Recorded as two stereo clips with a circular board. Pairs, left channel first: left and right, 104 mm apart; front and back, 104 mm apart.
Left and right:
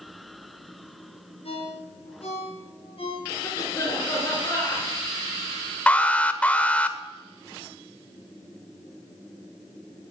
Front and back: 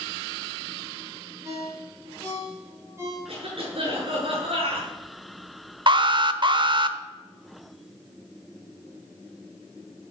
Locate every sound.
1.4 s a ringtone: 115° left, 7.5 m
3.3 s a cough: 150° left, 7.5 m
5.9 s an alarm: 165° left, 0.9 m